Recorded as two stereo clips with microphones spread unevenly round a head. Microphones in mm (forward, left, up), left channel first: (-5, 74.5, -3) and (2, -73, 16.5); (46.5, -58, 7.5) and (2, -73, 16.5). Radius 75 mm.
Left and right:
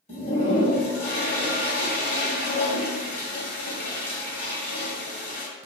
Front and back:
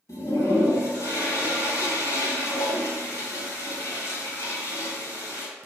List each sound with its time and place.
0.1 s a toilet flushing: 45° left, 1.8 m